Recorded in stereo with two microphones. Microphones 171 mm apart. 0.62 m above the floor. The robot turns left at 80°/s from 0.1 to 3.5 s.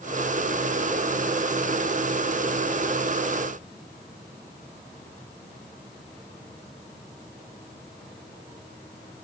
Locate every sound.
Only background noise.